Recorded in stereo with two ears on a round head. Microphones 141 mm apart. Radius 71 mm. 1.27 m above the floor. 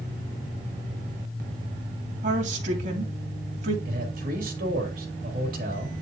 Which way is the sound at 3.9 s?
65° right (ahead or behind).